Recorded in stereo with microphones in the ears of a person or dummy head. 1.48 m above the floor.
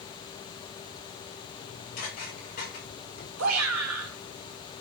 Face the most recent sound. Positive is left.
turn(degrees=-75)  # may be behind; listen again after turning